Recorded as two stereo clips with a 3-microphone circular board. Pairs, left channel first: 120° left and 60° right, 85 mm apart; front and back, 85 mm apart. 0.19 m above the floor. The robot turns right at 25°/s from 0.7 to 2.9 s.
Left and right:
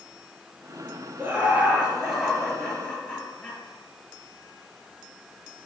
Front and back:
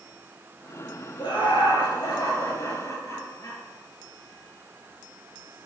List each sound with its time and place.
1.2 s laughter: straight ahead, 3.5 m; by 3.6 s 45° left, 3.5 m